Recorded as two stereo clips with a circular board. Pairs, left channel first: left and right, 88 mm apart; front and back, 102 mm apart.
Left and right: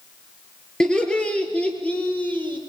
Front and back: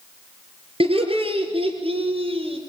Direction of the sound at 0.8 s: 170° left.